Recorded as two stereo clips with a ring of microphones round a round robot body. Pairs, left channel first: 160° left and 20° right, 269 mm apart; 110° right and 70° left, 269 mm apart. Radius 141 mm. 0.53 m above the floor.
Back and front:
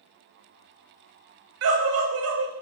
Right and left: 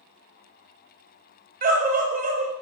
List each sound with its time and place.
1.6 s a scream: 10° left, 3.5 m